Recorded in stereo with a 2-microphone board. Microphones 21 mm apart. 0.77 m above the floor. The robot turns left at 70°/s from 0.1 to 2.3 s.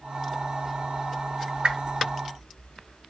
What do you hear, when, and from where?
1.6 s a whoosh: 60° right (ahead or behind), 0.9 m; by 1.9 s 75° right (ahead or behind), 0.9 m